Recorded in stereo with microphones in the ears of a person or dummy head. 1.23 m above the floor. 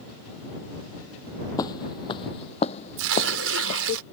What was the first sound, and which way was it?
Footsteps, 20° left (ahead or behind).